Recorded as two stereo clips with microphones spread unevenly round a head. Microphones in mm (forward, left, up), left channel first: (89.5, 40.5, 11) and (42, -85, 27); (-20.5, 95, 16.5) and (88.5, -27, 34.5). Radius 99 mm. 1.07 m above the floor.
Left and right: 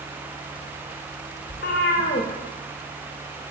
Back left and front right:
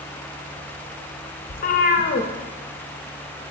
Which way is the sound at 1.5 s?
100° left.